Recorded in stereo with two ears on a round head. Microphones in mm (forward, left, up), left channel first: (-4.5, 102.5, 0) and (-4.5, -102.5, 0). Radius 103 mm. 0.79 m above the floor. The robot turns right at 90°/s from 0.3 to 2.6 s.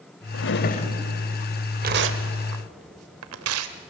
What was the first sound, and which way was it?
A drawer, 105° left.